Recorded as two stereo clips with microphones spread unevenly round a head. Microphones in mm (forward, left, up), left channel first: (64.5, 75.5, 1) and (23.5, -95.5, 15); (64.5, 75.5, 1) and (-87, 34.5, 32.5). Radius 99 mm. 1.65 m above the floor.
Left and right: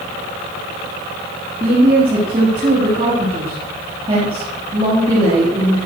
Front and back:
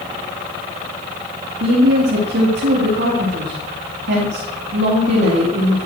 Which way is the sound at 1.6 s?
170° right.